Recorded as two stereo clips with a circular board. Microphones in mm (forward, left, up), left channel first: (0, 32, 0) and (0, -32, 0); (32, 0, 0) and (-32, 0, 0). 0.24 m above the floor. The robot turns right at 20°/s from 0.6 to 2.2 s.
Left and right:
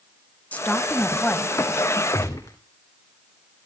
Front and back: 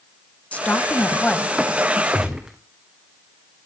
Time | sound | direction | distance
0.5 | a woman speaking | 50° left | 1.2 m
2.1 | a gunshot | 100° left | 2.5 m